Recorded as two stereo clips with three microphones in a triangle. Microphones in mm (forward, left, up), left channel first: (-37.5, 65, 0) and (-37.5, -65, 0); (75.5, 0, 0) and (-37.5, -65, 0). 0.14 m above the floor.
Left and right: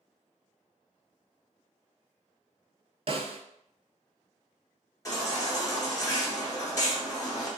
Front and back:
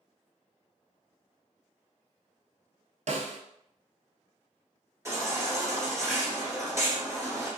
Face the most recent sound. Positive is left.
turn(degrees=150)